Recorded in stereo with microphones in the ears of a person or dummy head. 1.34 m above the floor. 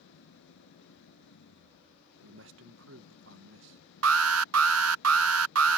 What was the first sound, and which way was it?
An engine running, 80° left.